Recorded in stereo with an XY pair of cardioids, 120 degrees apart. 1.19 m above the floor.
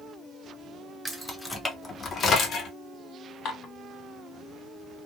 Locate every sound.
1.1 s keys jangling: 5° right, 0.7 m; by 2.7 s 55° left, 0.9 m
3.5 s dishes clattering: 55° left, 1.2 m